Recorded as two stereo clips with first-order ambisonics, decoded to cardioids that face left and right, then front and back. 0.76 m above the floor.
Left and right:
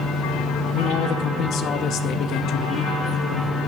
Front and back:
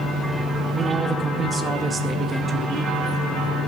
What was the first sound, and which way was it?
A man speaking, 110° left.